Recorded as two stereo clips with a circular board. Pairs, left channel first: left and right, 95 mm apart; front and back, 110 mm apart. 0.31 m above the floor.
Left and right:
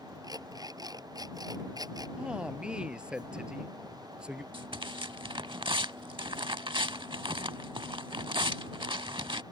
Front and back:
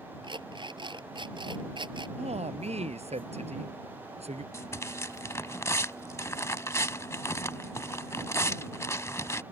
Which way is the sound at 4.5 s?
60° right.